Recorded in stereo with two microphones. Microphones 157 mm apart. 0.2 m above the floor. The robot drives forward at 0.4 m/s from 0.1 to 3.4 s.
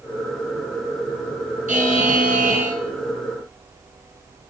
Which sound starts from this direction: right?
A buzzer, at 1.7 s.